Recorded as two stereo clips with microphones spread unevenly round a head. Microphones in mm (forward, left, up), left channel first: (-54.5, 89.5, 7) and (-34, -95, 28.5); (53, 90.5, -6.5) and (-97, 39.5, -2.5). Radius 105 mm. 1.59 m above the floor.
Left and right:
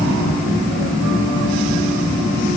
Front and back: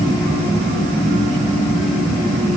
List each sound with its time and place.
Only background noise.